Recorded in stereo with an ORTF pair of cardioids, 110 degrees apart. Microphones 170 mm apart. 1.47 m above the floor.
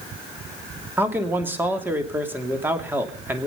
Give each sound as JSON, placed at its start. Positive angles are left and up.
{"t": 1.0, "sound": "a man speaking", "azimuth_deg": -10, "distance_m": 3.0}